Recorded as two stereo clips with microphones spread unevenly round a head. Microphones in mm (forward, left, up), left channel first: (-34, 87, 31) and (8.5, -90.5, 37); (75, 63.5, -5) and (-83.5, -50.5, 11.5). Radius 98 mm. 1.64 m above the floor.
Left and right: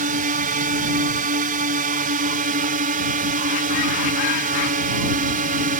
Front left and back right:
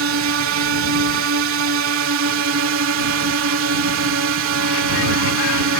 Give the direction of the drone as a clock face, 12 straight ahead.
4 o'clock.